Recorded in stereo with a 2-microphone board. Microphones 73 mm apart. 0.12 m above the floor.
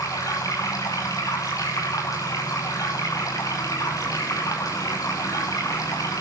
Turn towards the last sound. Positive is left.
turn(degrees=50)  # may be behind; listen again after turning